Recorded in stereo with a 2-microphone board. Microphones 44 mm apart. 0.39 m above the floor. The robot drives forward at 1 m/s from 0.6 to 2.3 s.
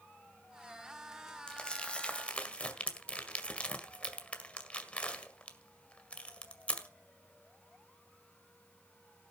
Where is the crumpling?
20° left (ahead or behind), 2.5 m; by 6.9 s 25° left (ahead or behind), 1.8 m.